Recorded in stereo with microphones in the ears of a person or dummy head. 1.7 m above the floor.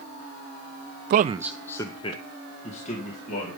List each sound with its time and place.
1.1 s a man speaking: 50° right (ahead or behind), 0.5 m; by 3.6 s 50° left (ahead or behind), 3 m